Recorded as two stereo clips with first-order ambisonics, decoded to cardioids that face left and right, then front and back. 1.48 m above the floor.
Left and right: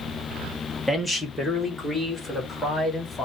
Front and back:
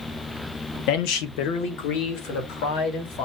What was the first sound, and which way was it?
A man speaking, straight ahead.